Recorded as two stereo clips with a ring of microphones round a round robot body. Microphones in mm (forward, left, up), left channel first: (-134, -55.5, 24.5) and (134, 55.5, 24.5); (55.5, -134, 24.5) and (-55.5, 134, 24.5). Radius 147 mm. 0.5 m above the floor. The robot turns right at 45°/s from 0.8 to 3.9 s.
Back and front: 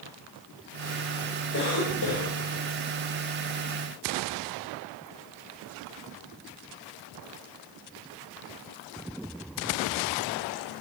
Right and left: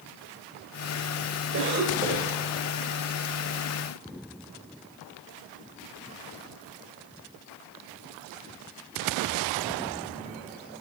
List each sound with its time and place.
1.5 s a cough: 155° left, 2.5 m; by 2.4 s 170° right, 2.5 m